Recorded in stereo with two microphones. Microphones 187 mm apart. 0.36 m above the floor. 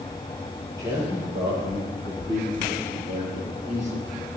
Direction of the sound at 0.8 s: 15° right (ahead or behind).